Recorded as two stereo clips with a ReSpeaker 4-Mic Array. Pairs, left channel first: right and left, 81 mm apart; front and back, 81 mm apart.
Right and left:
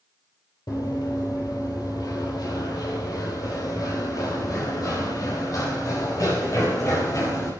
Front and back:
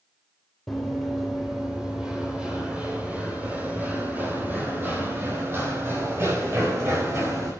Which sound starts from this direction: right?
Running footsteps, at 0.7 s.